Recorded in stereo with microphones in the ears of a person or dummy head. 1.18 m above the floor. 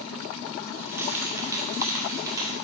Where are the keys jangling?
10° right (ahead or behind), 2 m; by 2.5 s 20° right (ahead or behind), 3.5 m.